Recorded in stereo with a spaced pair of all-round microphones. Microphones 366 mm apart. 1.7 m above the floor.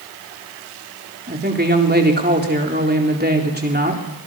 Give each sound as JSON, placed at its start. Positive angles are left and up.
{"t": 1.3, "sound": "a woman speaking", "side_deg": -25, "distance_m": 4.0}